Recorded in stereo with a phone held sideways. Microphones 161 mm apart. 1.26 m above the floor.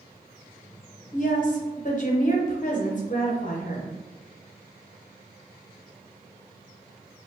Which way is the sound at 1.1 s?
55° left (ahead or behind).